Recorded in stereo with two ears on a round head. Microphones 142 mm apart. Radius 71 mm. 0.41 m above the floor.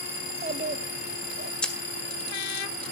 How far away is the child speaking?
About 1.2 m.